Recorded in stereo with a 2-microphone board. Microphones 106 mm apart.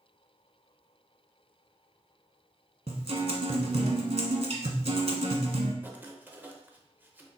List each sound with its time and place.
2.9 s a guitar: 75° right (ahead or behind), 0.8 m
5.8 s writing: 20° right (ahead or behind), 0.6 m